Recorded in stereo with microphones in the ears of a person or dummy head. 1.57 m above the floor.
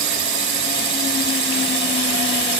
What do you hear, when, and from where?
0.0 s a drone: 70° right (ahead or behind); by 2.6 s 65° right (ahead or behind)